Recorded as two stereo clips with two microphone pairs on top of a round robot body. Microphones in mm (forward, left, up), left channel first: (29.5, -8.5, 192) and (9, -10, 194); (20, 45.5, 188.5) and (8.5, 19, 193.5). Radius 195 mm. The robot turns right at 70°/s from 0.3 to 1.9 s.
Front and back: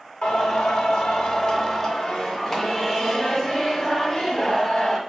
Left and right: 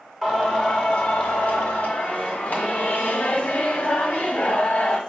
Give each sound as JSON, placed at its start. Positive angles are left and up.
{"t": 0.2, "sound": "singing", "azimuth_deg": -30, "distance_m": 1.3}